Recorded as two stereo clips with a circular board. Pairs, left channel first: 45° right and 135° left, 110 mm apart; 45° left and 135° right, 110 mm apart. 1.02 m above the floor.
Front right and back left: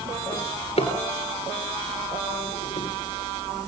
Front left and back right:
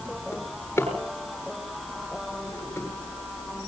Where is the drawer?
25° right, 8 m.